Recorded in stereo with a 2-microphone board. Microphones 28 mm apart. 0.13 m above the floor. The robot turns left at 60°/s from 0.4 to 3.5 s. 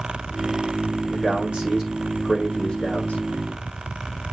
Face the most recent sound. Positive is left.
turn(degrees=90)